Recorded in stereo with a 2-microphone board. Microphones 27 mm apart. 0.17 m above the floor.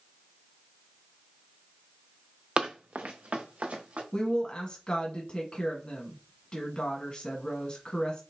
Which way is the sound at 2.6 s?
40° right (ahead or behind).